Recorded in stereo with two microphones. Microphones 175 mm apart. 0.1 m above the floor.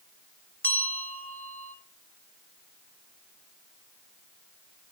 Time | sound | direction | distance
0.6 | a bell | 10° left (ahead or behind) | 1.1 m